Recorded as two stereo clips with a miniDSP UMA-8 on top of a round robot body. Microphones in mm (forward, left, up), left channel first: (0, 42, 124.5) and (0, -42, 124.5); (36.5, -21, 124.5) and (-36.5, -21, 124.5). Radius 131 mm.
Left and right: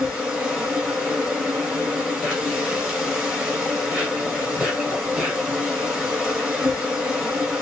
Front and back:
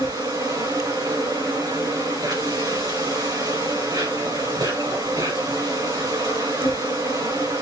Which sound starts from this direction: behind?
An insect, at 0.0 s.